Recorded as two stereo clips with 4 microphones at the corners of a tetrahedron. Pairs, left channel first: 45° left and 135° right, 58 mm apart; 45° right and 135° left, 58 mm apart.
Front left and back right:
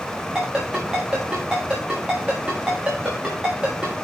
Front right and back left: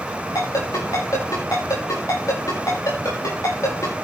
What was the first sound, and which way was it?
A ringtone, 60° right.